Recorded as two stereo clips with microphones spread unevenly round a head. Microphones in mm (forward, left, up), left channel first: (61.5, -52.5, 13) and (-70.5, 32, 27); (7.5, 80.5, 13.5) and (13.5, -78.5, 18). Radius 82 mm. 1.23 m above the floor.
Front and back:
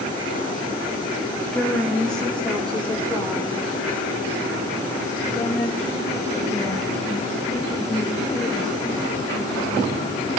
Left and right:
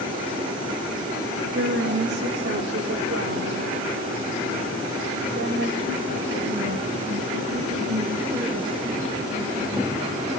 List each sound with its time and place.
1.5 s a woman speaking: 120° right, 2 m; by 10.0 s 115° right, 9.5 m